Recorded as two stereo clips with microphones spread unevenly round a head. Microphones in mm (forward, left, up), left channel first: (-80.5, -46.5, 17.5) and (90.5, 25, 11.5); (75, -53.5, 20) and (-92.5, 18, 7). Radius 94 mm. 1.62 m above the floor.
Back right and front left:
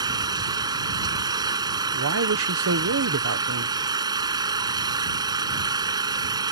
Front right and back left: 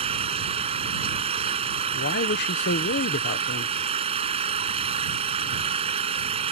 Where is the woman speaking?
15° left.